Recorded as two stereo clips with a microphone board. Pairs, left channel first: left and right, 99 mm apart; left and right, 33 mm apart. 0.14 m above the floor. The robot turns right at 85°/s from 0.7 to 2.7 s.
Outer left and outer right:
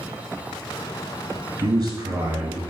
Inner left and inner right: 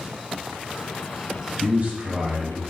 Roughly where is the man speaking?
Right.